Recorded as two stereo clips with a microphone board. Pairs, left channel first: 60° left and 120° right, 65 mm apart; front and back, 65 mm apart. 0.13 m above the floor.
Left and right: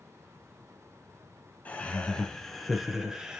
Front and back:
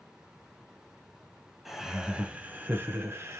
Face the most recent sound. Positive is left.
turn(degrees=165)